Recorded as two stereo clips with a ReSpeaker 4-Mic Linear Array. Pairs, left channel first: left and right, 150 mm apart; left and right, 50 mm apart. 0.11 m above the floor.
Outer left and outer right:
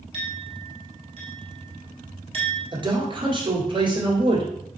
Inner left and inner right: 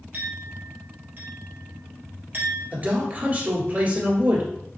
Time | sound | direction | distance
0.1 | a clink | 40° right (ahead or behind) | 1.6 m
2.7 | a man speaking | 35° right (ahead or behind) | 1.7 m